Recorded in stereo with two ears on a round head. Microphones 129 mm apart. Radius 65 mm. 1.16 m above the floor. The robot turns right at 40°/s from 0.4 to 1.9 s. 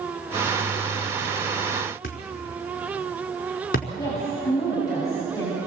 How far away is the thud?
About 4.5 m.